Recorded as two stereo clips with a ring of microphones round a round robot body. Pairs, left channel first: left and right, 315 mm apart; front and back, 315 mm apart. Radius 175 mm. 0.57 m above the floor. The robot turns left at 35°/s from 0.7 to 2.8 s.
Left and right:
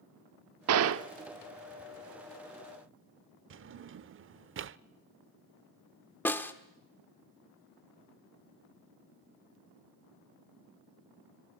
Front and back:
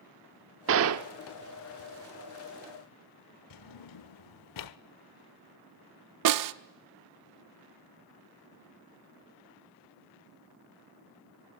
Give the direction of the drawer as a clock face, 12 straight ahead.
1 o'clock.